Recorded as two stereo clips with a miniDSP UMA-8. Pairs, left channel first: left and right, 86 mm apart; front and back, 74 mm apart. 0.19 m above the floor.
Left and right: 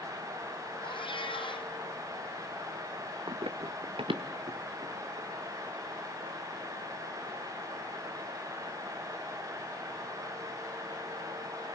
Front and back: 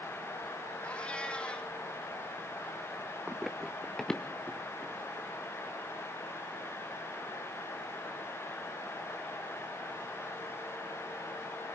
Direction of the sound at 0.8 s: 75° left.